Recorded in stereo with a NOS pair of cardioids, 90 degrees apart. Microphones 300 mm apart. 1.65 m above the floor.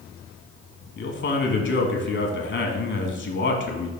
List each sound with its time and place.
1.0 s a man speaking: 40° left, 1.5 m